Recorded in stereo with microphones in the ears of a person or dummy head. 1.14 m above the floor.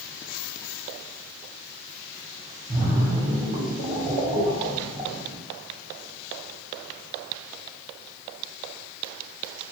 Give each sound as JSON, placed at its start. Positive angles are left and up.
{"t": 2.7, "sound": "a splash", "side_deg": -30, "distance_m": 0.8}